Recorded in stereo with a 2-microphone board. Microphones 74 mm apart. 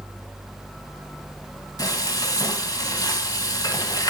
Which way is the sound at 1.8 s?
60° left (ahead or behind).